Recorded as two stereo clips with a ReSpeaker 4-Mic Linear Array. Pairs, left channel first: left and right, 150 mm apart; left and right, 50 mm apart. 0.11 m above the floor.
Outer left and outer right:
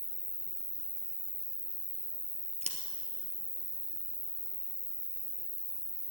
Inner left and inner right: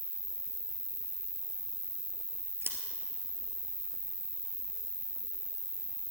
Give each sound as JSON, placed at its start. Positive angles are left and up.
{"t": 0.0, "sound": "an insect", "side_deg": -35, "distance_m": 1.3}
{"t": 2.6, "sound": "scissors", "side_deg": -50, "distance_m": 1.6}